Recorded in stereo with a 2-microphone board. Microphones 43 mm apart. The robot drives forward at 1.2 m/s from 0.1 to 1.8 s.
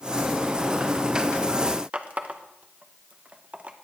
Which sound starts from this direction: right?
A running tap, at 1.9 s.